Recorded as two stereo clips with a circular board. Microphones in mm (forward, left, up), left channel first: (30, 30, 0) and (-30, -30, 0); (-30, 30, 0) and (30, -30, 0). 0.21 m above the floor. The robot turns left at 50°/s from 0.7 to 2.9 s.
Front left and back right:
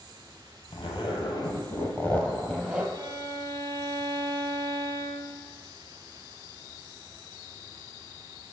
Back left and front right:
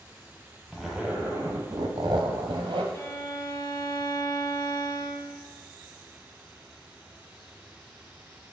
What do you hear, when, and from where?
0.7 s a zipper: 45° left, 1.1 m; by 2.8 s 60° right, 1.1 m
2.9 s a violin: 170° right, 0.8 m